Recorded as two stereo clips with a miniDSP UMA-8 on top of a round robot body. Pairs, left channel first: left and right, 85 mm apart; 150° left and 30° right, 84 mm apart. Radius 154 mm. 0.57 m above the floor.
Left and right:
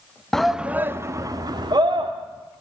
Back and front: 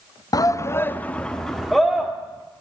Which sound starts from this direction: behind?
A shout, at 0.3 s.